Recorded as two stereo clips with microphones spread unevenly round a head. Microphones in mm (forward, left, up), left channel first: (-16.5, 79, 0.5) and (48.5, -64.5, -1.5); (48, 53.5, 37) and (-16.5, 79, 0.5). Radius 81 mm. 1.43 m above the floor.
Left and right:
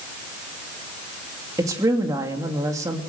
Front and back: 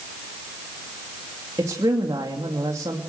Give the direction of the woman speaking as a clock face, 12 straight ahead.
5 o'clock.